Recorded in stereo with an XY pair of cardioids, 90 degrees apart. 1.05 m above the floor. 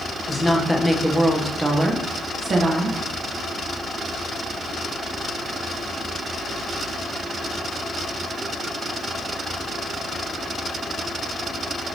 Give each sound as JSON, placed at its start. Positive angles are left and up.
{"t": 0.3, "sound": "a woman speaking", "azimuth_deg": 10, "distance_m": 1.2}